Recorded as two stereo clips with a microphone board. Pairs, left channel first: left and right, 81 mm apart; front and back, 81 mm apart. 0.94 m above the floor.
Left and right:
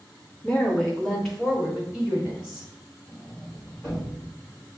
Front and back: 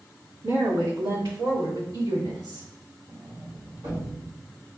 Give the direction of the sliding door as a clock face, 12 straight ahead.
6 o'clock.